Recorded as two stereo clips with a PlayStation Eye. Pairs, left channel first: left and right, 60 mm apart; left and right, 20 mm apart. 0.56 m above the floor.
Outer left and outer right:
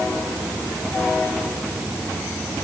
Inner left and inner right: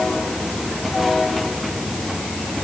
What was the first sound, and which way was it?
Only background noise.